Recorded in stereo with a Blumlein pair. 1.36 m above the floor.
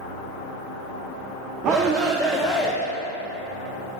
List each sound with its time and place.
1.6 s a shout: 30° right, 0.8 m; by 2.8 s 25° left, 0.6 m